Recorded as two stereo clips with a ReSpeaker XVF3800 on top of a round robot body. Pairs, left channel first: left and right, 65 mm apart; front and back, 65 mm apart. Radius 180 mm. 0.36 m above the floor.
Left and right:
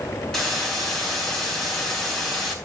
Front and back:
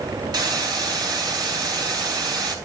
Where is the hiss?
175° left, 4.5 m.